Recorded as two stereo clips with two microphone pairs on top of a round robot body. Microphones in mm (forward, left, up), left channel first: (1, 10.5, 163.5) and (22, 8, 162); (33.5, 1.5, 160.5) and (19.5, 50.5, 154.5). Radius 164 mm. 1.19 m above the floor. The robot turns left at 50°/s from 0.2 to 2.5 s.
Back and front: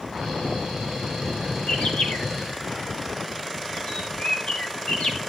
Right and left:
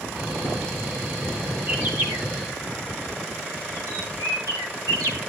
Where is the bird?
175° left, 0.8 m; by 5.2 s 135° left, 0.8 m.